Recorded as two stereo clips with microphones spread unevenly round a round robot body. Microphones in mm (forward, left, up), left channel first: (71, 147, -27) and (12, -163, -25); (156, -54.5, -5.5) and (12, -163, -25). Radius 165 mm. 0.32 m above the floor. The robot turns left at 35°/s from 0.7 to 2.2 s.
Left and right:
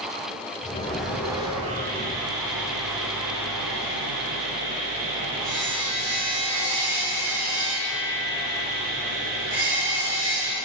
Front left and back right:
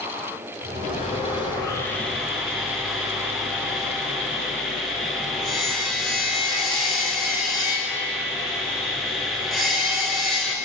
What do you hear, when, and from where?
0.8 s sawing: 5° right, 4.5 m; by 10.6 s 55° right, 4.5 m